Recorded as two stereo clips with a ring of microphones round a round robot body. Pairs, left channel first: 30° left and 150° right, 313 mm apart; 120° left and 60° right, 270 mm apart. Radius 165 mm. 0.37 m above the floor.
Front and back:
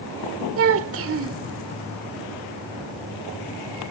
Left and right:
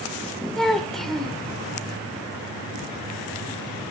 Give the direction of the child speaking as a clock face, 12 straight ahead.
5 o'clock.